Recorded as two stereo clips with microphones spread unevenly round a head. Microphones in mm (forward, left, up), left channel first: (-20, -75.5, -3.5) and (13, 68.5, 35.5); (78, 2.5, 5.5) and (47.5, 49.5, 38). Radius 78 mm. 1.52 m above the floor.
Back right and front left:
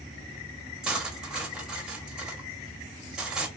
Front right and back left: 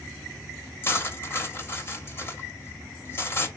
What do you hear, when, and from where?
0.8 s cutlery clinking: 10° left, 0.8 m